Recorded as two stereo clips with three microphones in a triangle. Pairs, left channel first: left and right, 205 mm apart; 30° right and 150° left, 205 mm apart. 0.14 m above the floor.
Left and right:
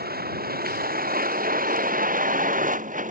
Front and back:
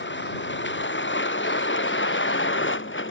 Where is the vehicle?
50° right; by 3.1 s 40° right.